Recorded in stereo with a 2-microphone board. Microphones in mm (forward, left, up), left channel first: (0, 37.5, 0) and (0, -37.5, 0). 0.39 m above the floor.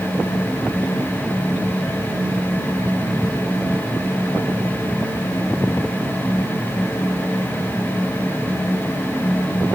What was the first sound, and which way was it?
Only background noise.